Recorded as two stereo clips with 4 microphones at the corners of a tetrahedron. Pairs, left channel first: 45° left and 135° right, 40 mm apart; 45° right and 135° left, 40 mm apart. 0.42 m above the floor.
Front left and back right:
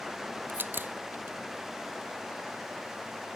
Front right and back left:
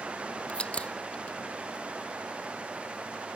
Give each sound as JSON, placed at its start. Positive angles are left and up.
{"t": 0.5, "sound": "a crack", "azimuth_deg": -105}